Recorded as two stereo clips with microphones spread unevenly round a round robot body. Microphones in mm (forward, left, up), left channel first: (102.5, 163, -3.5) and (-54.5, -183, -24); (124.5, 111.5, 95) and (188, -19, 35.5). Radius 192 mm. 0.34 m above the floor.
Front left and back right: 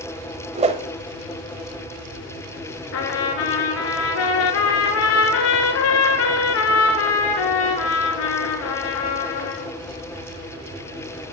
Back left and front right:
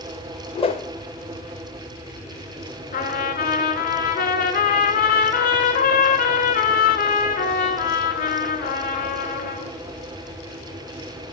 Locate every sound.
0.6 s a whoosh: straight behind, 0.7 m
2.9 s a trumpet: 120° left, 1.7 m